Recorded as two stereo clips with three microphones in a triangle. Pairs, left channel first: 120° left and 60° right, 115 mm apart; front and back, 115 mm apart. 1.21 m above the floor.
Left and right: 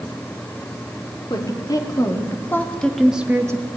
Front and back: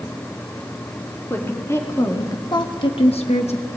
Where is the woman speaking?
70° left, 3 m; by 3.7 s 10° right, 1.2 m.